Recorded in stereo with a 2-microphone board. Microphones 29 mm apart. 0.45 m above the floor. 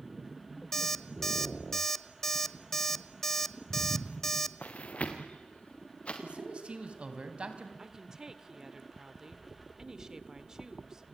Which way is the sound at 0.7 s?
15° left (ahead or behind).